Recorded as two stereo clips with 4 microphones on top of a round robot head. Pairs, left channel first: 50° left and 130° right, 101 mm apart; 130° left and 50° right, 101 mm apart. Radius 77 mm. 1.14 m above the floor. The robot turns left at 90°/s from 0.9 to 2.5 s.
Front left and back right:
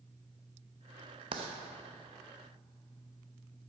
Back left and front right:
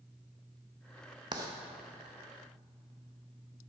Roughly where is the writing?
Right.